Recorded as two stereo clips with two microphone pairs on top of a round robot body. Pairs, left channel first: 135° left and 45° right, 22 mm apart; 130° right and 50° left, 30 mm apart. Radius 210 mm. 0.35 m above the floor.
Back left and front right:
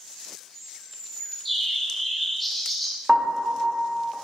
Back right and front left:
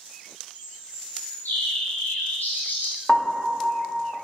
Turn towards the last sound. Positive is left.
turn(degrees=-60)